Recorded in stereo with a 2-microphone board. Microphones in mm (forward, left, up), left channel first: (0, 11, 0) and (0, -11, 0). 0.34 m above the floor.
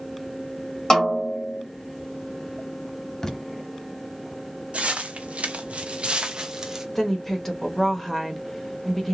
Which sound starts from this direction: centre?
A woman speaking, at 7.0 s.